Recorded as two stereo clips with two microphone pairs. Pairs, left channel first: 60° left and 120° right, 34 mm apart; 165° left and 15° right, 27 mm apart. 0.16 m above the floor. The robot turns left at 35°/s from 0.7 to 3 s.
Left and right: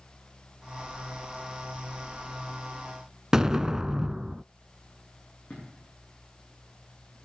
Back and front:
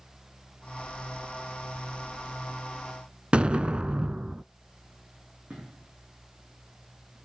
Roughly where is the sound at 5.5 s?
Ahead.